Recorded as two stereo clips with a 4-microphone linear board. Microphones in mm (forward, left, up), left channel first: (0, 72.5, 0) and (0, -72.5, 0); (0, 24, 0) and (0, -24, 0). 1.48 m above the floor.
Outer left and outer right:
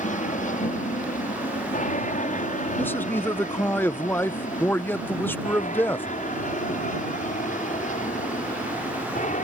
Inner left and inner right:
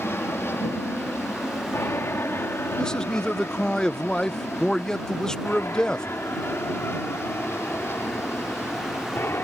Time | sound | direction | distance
0.0 | an aircraft | 60° left (ahead or behind) | ?
2.8 | a man speaking | 15° left (ahead or behind) | ?